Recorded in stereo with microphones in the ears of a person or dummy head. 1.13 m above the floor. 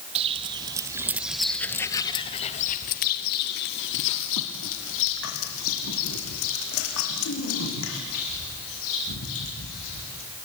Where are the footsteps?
30° right (ahead or behind), 2 m; by 10.2 s 80° left, 8 m.